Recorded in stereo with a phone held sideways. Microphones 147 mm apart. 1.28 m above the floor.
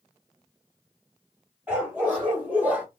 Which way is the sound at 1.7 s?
10° right (ahead or behind).